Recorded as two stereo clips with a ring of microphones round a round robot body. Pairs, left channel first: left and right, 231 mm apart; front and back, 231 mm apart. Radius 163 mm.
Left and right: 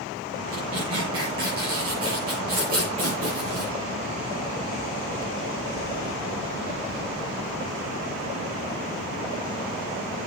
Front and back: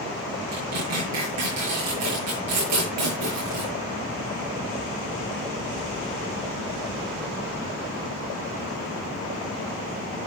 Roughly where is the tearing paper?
Behind.